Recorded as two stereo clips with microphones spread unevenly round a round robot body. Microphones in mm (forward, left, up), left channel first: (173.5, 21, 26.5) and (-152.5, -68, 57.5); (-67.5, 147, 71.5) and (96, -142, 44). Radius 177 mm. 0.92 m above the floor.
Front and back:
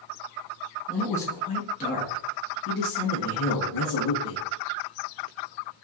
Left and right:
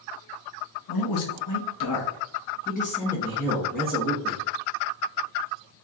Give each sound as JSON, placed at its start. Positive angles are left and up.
{"t": 0.9, "sound": "a man speaking", "azimuth_deg": 100, "distance_m": 1.4}